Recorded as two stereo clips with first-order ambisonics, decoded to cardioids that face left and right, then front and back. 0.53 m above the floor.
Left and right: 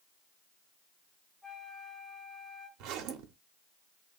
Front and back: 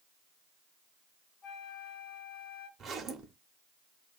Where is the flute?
5° left, 1.1 m.